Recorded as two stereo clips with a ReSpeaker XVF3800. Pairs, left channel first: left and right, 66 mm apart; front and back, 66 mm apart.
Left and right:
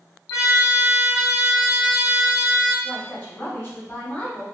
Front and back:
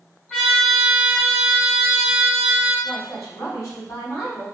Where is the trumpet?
85° left, 2.0 m.